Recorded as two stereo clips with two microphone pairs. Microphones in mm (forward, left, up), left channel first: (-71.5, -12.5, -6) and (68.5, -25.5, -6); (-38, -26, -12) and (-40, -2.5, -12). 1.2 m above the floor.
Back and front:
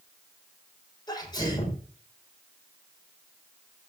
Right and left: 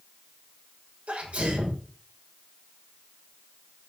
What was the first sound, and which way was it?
A sneeze, 115° left.